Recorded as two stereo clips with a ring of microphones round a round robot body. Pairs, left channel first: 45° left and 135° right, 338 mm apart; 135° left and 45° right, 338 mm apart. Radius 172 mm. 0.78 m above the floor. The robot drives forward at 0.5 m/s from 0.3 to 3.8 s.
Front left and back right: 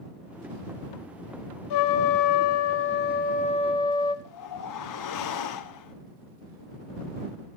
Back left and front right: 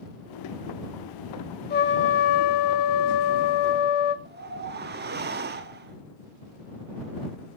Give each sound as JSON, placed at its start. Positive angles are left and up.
{"t": 1.7, "sound": "a trumpet", "azimuth_deg": 70, "distance_m": 1.2}
{"t": 4.2, "sound": "a whoosh", "azimuth_deg": 15, "distance_m": 1.3}